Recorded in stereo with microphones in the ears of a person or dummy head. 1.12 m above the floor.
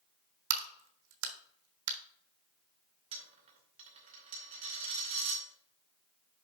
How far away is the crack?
About 1.0 m.